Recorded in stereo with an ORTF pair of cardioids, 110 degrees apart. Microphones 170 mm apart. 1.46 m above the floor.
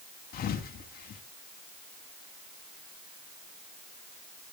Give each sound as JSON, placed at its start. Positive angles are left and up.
{"t": 0.3, "sound": "a thud", "azimuth_deg": 60, "distance_m": 5.0}